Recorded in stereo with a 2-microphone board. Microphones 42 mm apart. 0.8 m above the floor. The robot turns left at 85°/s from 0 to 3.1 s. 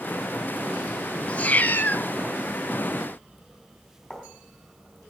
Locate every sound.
1.3 s a cat meowing: 130° left, 0.8 m; by 2.1 s 65° left, 0.8 m
4.1 s writing: 10° left (ahead or behind), 3.5 m